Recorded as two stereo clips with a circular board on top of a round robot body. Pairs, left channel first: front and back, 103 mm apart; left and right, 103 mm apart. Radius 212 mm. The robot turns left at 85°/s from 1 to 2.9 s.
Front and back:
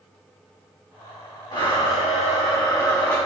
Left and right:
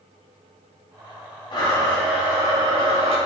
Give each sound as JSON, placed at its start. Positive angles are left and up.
{"t": 1.5, "sound": "a blender", "azimuth_deg": 50, "distance_m": 6.0}